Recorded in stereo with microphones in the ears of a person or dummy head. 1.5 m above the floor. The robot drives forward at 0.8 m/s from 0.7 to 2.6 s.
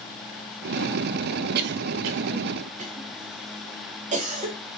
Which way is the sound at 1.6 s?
60° right (ahead or behind).